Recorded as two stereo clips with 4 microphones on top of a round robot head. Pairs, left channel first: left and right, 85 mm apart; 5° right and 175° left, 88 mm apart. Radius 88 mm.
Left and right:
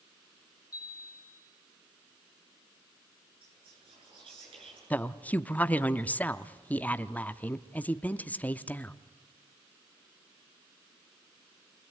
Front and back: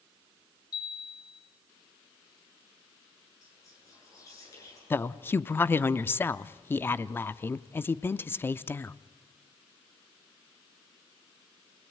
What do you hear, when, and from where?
0.7 s a chime: 30° left, 3 m
3.4 s whispering: 65° right, 9 m
4.9 s a woman speaking: 35° left, 0.7 m